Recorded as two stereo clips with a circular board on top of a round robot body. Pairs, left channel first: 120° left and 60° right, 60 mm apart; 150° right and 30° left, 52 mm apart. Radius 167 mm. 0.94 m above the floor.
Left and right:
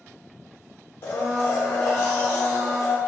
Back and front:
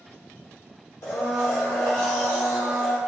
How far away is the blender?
About 0.9 m.